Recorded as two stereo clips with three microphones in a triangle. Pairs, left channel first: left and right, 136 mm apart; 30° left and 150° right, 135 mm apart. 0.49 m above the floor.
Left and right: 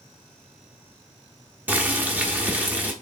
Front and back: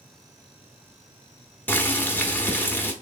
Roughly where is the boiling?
Ahead right.